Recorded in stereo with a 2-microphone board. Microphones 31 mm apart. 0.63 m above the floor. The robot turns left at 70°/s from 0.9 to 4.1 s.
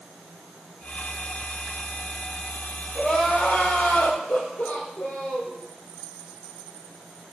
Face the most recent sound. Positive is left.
turn(degrees=75)